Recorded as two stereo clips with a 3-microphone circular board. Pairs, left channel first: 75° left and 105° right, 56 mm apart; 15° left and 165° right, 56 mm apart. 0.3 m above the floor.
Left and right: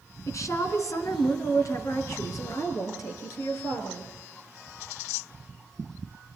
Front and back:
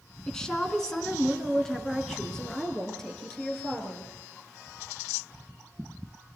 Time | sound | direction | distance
0.3 | a woman speaking | 95° left | 3 m